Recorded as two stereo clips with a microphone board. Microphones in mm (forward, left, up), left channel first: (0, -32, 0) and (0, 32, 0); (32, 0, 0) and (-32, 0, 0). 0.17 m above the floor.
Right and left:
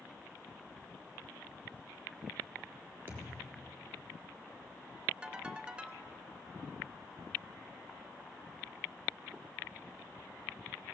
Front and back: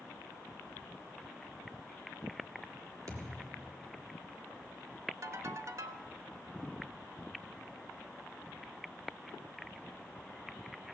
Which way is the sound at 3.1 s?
145° left.